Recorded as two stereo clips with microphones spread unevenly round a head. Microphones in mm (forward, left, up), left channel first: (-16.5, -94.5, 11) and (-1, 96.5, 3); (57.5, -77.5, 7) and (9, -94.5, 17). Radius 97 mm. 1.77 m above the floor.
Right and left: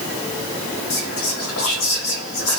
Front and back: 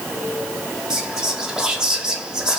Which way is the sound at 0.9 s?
80° right.